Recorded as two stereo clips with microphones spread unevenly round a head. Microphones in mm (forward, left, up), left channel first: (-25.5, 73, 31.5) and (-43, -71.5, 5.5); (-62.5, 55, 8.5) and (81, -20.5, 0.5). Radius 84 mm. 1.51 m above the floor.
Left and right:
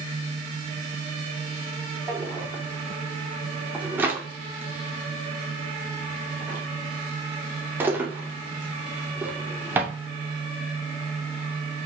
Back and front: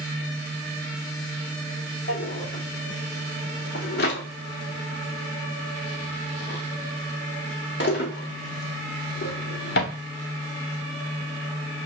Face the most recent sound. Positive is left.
turn(degrees=-175)